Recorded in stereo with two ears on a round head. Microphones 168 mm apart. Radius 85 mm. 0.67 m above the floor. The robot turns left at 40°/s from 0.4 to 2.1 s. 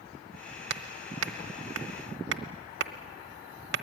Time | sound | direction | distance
0.7 | hammering | 55° right (ahead or behind) | 1.0 m